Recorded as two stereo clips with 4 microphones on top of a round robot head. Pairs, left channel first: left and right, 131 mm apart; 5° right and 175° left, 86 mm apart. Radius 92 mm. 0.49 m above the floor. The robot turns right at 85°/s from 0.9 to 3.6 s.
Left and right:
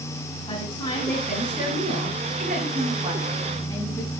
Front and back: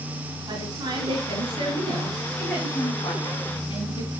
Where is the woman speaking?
140° left, 9 m; by 4.1 s 10° left, 9 m.